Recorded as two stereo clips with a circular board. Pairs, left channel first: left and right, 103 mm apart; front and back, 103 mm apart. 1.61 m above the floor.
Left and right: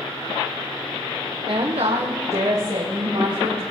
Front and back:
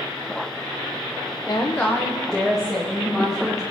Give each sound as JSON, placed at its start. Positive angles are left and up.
{"t": 1.5, "sound": "a woman speaking", "azimuth_deg": -50, "distance_m": 0.8}